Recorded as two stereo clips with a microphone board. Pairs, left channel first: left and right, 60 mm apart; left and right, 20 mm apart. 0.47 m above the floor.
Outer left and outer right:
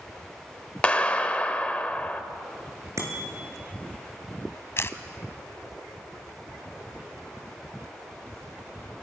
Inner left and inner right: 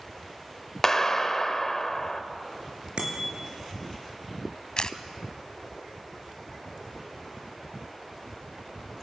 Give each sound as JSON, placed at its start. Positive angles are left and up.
{"t": 0.8, "sound": "a clap", "side_deg": 20, "distance_m": 1.6}
{"t": 3.0, "sound": "a bicycle bell", "side_deg": -55, "distance_m": 6.0}
{"t": 4.8, "sound": "a camera shutter", "side_deg": 45, "distance_m": 1.2}